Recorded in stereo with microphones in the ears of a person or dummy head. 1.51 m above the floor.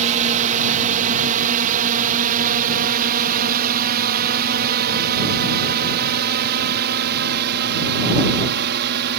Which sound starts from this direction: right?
A drone, at 0.0 s.